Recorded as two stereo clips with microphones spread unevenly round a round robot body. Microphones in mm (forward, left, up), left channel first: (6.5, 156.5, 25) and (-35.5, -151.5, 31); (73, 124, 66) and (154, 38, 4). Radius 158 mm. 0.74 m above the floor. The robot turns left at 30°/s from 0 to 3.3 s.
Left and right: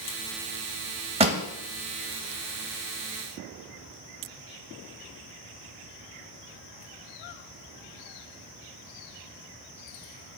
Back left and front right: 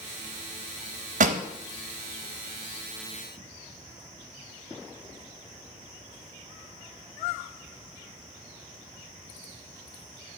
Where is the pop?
40° right, 0.6 m; by 1.4 s 45° right, 0.6 m.